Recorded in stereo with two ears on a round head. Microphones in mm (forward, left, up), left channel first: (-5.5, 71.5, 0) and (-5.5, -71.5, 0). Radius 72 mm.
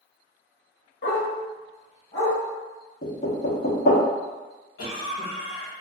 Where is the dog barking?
70° left (ahead or behind), 1.1 m; by 2.4 s 15° left (ahead or behind), 2.0 m.